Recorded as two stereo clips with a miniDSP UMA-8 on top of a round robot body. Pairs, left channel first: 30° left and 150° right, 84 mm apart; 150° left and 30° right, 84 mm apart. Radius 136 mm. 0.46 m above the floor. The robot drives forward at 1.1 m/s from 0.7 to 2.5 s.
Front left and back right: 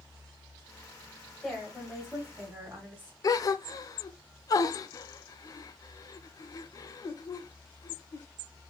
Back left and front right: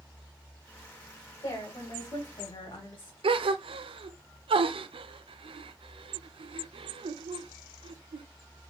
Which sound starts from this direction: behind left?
A woman speaking, at 1.4 s.